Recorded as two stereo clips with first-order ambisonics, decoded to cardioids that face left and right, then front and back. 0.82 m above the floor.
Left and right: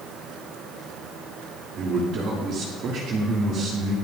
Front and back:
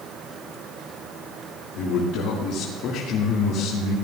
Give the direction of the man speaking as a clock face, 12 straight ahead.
1 o'clock.